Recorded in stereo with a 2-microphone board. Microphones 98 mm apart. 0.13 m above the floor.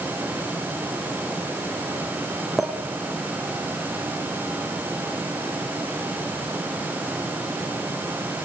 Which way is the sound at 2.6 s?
Centre (ahead or behind).